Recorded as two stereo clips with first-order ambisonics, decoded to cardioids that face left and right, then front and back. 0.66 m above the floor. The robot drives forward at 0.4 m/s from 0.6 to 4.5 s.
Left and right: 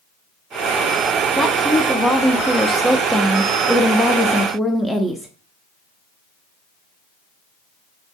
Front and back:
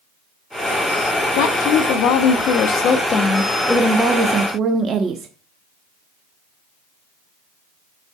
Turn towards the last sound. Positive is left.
turn(degrees=175)